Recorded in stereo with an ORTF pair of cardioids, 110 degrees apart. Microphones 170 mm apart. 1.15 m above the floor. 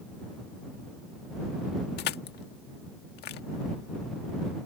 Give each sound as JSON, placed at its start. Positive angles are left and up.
{"t": 2.0, "sound": "crushing", "azimuth_deg": 70}